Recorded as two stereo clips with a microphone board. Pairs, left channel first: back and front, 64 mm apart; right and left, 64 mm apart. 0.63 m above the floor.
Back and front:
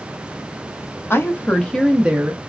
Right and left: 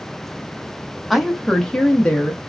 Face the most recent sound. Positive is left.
turn(degrees=-35)